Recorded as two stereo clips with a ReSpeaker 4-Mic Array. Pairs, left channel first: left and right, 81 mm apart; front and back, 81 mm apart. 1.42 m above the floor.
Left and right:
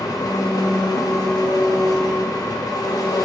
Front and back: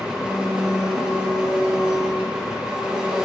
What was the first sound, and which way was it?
An engine running, 105° left.